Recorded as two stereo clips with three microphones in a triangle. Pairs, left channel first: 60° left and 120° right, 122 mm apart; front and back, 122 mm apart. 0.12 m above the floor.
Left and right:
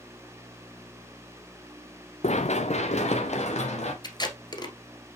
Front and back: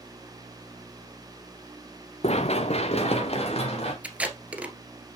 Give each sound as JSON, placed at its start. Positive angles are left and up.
{"t": 2.2, "sound": "running footsteps", "azimuth_deg": 35, "distance_m": 0.8}
{"t": 4.0, "sound": "tape being pulled", "azimuth_deg": 105, "distance_m": 1.4}